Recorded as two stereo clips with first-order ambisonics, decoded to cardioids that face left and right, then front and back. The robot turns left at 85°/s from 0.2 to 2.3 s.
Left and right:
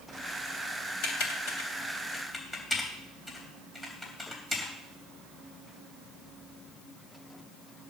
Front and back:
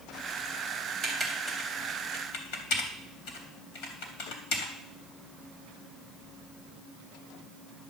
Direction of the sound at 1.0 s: 120° left.